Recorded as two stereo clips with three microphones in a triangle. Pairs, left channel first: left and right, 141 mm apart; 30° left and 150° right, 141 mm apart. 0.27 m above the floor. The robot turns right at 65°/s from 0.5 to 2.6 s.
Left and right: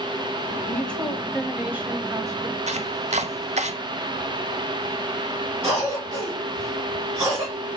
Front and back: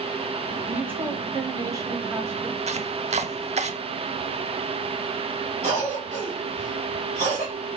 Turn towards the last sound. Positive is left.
turn(degrees=-130)